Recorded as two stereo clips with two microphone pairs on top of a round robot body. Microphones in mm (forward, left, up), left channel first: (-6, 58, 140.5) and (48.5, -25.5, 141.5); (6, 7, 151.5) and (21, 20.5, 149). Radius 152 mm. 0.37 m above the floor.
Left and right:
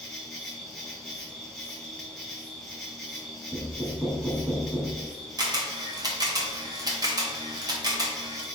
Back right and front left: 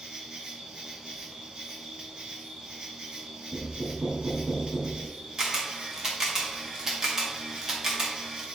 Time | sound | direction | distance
0.0 | an insect | 35° left | 2.5 m
3.5 | knocking | 25° left | 4 m
5.4 | a camera shutter | 10° right | 2.5 m